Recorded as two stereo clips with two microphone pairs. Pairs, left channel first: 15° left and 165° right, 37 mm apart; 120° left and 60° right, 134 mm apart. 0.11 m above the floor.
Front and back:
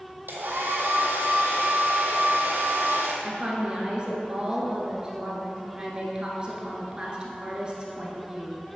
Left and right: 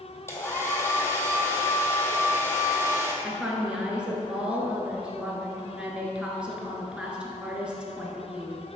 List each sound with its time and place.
0.3 s a hair dryer: 170° right, 1.1 m
3.2 s a woman speaking: 135° right, 1.2 m